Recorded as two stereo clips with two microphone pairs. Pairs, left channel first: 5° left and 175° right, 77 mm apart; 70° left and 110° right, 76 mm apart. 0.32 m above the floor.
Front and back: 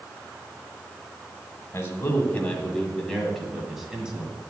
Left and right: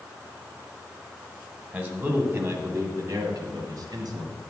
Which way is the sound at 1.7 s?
50° right.